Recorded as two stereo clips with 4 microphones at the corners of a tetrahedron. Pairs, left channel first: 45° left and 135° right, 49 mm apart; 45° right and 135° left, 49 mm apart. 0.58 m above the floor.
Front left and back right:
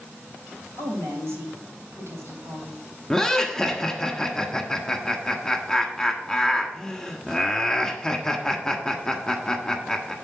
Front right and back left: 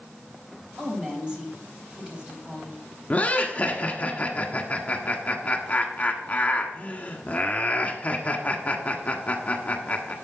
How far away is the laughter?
About 1.4 m.